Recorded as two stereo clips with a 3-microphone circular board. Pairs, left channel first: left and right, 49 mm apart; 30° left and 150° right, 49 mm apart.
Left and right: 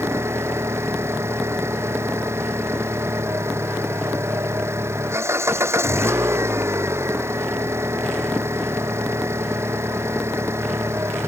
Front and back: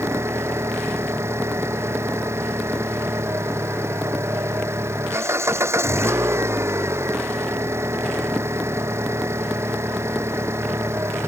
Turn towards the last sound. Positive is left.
turn(degrees=-120)